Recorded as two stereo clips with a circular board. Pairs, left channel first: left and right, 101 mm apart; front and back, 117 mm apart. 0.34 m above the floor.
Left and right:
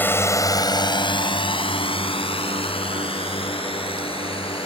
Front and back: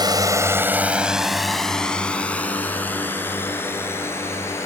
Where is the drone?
150° left; by 4.7 s 65° left.